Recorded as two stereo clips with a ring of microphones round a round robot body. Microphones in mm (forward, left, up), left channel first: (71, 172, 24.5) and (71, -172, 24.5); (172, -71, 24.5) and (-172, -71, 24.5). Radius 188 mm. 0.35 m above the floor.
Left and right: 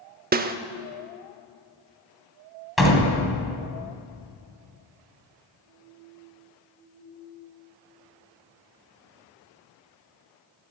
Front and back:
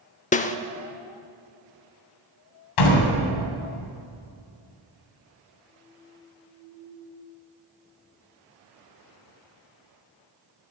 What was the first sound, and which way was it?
A snare drum, 50° right.